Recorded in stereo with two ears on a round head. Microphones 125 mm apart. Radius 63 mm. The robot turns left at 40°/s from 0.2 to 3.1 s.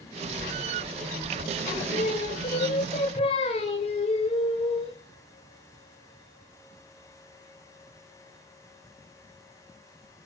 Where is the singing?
125° left, 2 m; by 5.0 s 65° left, 2 m.